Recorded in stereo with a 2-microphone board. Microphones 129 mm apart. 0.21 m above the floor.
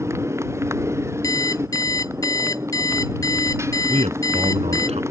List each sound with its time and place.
0.0 s a motorcycle: 20° right (ahead or behind)
1.2 s an alarm clock: 30° left (ahead or behind)
3.9 s a man speaking: 60° right (ahead or behind)